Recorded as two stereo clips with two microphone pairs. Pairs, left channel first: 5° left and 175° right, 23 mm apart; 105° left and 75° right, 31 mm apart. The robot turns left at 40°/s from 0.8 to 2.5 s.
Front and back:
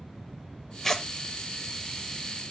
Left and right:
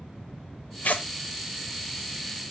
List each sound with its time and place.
0.8 s tearing paper: 80° left, 0.7 m; by 1.1 s 75° left, 0.7 m